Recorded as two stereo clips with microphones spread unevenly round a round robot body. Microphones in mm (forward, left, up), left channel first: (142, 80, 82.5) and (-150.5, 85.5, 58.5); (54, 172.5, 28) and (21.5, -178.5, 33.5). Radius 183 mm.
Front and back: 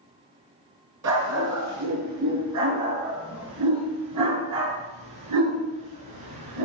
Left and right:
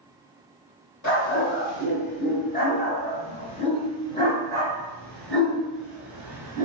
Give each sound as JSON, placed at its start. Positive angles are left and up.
{"t": 1.0, "sound": "a dog barking", "azimuth_deg": 145, "distance_m": 5.0}